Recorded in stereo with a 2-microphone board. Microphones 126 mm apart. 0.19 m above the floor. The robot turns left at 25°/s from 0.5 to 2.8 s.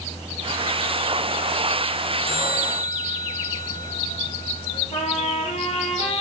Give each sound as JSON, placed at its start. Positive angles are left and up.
{"t": 2.2, "sound": "a bell", "side_deg": 50, "distance_m": 7.5}
{"t": 4.9, "sound": "a trumpet", "side_deg": 55, "distance_m": 5.0}